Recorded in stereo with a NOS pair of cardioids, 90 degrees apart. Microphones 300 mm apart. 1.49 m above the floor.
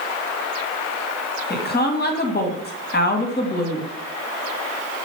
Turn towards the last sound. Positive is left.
turn(degrees=35)